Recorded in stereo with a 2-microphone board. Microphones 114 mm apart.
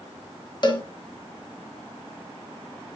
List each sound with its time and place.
0.6 s a cowbell: 40° left (ahead or behind), 1.8 m